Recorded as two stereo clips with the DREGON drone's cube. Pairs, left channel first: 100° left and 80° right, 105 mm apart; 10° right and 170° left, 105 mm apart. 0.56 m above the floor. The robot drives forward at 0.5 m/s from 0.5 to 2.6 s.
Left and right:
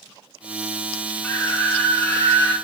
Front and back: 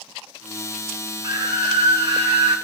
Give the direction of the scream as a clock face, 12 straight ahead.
7 o'clock.